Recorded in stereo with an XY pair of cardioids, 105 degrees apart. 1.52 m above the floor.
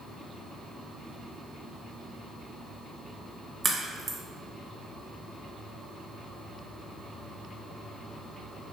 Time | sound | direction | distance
3.6 | a crack | 35° right | 1.2 m